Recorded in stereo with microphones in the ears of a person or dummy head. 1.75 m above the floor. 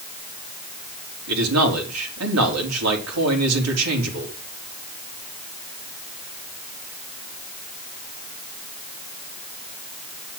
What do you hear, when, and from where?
1.3 s a man speaking: 85° right, 4 m